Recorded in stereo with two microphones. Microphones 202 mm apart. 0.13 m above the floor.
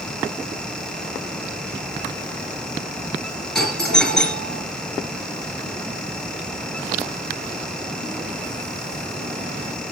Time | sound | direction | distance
3.5 | a doorbell | 5° left (ahead or behind) | 3 m